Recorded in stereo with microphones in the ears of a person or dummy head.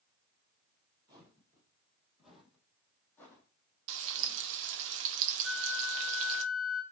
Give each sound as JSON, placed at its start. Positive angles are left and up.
{"t": 1.1, "sound": "footsteps", "side_deg": -25, "distance_m": 3.5}
{"t": 3.9, "sound": "frying", "side_deg": -65, "distance_m": 1.3}
{"t": 5.4, "sound": "a flute", "side_deg": 0, "distance_m": 5.0}